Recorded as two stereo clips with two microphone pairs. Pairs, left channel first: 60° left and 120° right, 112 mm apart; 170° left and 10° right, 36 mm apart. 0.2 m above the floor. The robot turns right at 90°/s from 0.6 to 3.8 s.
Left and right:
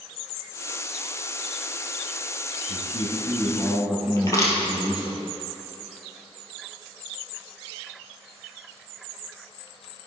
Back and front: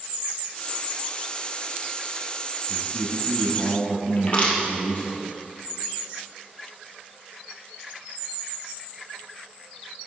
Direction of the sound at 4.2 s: 120° left.